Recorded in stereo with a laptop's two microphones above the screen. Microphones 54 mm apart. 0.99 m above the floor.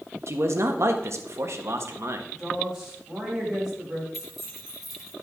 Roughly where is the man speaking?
Right.